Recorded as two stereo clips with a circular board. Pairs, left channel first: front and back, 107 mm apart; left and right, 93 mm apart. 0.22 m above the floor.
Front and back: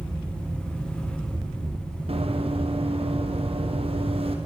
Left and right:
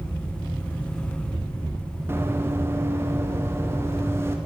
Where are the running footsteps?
155° right, 5 m.